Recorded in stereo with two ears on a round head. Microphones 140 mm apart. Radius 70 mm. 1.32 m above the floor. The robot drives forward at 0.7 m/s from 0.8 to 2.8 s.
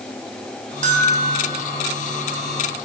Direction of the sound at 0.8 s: 50° right (ahead or behind).